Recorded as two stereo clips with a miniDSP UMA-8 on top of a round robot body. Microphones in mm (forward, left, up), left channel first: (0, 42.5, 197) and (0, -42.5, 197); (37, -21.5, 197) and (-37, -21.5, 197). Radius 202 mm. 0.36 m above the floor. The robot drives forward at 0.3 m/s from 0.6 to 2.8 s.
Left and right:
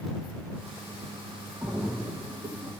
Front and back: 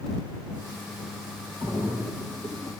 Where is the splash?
155° right, 2.5 m; by 2.7 s 160° right, 2.5 m.